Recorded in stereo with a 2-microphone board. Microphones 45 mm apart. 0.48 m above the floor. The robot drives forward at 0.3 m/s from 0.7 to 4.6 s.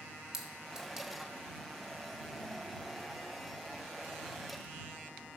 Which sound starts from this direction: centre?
A clink, at 0.3 s.